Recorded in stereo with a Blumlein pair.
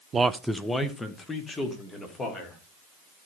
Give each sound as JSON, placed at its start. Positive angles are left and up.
{"t": 0.1, "sound": "a man speaking", "azimuth_deg": -20, "distance_m": 0.6}